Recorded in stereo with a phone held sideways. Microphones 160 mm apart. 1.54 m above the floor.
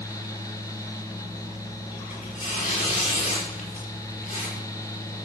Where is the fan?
20° left (ahead or behind), 1.3 m.